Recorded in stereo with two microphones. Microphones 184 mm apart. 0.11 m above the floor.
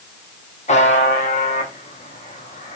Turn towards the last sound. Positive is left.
turn(degrees=40)  # may be behind; listen again after turning